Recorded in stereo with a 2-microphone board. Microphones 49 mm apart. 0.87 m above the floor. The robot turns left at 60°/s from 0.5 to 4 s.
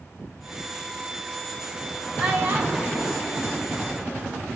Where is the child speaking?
10° right (ahead or behind), 4 m; by 4.4 s 60° right (ahead or behind), 4 m.